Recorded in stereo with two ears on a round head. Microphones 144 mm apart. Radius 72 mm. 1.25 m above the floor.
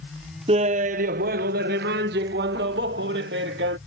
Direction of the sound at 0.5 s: 35° right (ahead or behind).